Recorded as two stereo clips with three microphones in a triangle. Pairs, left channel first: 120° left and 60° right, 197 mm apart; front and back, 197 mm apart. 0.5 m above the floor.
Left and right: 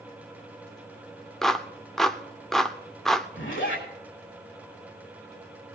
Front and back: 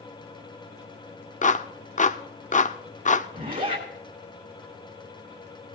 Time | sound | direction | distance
1.4 | a clap | 35° left | 0.7 m
3.3 | a zipper | 135° left | 4 m